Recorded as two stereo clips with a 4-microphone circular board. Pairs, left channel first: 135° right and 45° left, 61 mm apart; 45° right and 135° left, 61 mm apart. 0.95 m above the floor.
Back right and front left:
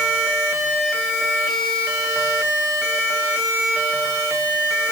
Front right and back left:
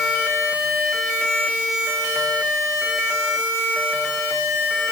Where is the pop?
I don't hear a pop.